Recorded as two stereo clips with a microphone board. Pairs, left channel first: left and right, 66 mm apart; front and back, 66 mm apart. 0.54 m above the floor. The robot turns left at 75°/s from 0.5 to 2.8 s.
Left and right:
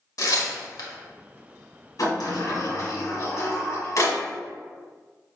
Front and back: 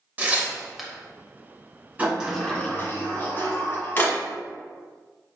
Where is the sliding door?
110° left, 1.9 m; by 4.2 s 50° left, 1.9 m.